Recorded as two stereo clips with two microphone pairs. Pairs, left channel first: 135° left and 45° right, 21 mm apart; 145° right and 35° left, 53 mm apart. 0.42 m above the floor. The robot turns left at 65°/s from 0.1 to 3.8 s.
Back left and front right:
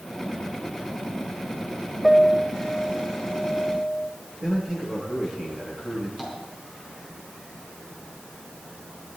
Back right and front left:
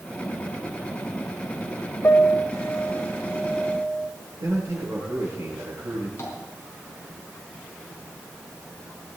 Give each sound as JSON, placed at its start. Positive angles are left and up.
{"t": 2.0, "sound": "a piano", "azimuth_deg": -125, "distance_m": 1.3}
{"t": 4.4, "sound": "a man speaking", "azimuth_deg": 20, "distance_m": 8.0}
{"t": 6.2, "sound": "tapping", "azimuth_deg": -110, "distance_m": 4.0}